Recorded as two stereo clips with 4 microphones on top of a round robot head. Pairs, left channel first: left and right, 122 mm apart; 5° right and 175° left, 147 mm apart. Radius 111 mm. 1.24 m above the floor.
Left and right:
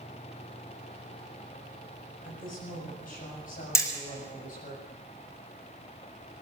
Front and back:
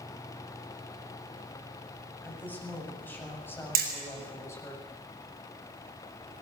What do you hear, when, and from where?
2.2 s a woman speaking: 75° left, 8 m; by 4.8 s 65° left, 7 m
3.8 s hammering: 155° left, 6 m